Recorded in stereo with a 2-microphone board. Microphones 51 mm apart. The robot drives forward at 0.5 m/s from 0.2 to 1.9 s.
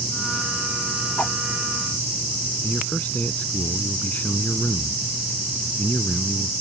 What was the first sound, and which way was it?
A whoosh, 35° left (ahead or behind).